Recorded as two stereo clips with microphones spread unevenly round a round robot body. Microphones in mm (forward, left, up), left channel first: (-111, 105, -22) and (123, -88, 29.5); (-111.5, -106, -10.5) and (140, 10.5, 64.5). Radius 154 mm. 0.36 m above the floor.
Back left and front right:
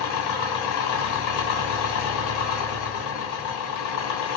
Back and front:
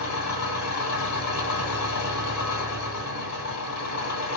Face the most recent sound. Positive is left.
turn(degrees=170)